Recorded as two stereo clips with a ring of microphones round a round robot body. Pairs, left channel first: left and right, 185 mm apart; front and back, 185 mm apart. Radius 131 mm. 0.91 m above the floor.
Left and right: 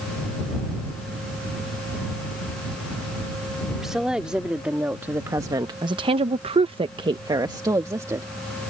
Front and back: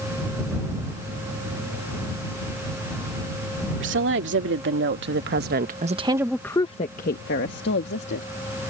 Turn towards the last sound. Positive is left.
turn(degrees=-15)